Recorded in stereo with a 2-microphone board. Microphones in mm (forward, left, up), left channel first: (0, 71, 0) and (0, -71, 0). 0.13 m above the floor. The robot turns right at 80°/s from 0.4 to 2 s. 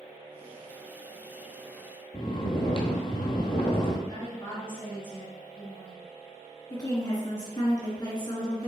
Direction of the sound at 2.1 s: 40° left (ahead or behind).